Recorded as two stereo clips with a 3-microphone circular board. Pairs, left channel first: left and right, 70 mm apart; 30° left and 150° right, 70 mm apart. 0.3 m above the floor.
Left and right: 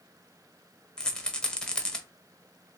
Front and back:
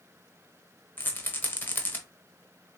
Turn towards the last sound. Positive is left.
turn(degrees=25)